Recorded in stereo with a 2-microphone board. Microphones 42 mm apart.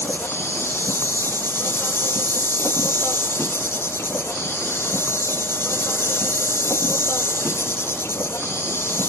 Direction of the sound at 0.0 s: 85° left.